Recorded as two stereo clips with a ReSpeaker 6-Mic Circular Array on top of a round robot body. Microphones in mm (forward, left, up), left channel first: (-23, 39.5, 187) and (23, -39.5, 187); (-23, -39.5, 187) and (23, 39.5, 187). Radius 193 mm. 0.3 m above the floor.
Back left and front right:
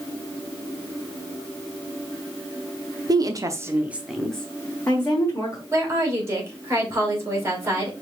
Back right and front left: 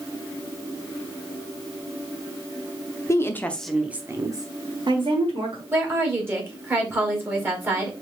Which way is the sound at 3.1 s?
80° right.